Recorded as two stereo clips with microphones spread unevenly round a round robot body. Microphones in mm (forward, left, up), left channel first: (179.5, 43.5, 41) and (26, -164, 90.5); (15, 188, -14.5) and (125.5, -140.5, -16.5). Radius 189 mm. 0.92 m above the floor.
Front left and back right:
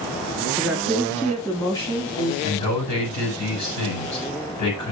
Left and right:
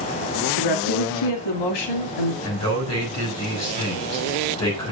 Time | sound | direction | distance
0.6 | a woman speaking | 140° left | 1.9 m
2.4 | a man speaking | 65° left | 7 m